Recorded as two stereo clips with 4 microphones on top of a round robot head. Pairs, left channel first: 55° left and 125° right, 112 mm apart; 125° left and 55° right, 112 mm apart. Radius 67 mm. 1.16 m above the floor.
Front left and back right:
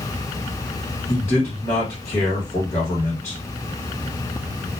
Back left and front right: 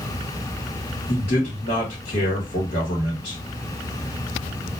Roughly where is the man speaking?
Behind left.